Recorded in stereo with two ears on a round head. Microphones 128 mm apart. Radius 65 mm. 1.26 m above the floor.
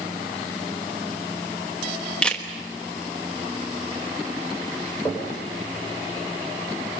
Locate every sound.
2.2 s a camera shutter: 5° left (ahead or behind), 1.3 m
5.0 s knocking: 15° left (ahead or behind), 5 m